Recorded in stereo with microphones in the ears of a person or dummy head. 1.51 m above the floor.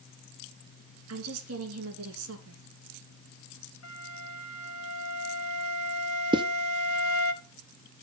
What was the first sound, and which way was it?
A woman speaking, 85° right.